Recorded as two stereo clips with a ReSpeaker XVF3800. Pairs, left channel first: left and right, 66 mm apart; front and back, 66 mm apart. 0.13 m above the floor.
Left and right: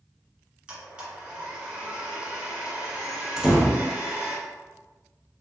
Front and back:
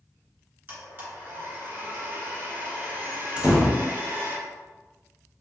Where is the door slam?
150° right, 0.7 m.